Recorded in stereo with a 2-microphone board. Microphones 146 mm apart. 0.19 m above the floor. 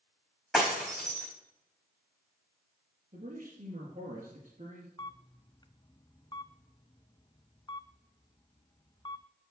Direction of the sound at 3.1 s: 45° right (ahead or behind).